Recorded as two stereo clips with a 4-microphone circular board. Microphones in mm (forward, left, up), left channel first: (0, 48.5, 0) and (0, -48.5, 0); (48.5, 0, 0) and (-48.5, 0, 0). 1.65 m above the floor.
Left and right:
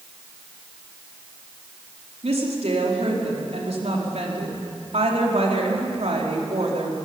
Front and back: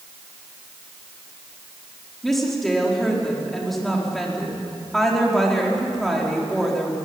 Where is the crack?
No crack in this recording.